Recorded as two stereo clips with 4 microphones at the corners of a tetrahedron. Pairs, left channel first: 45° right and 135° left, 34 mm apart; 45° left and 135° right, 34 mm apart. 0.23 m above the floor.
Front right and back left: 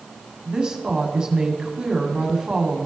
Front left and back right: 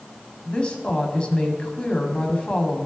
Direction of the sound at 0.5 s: 80° left.